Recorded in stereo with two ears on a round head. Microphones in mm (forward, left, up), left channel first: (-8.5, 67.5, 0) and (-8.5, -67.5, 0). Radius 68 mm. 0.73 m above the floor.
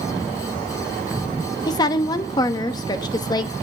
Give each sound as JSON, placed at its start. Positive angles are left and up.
{"t": 1.7, "sound": "a woman speaking", "side_deg": 25, "distance_m": 1.1}